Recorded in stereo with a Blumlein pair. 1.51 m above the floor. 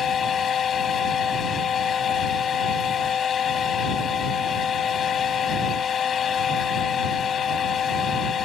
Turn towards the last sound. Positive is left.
turn(degrees=25)